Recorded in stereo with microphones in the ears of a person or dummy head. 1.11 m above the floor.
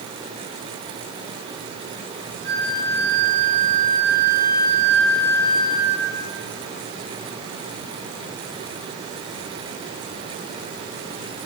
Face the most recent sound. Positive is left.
turn(degrees=-65)  # may be behind; listen again after turning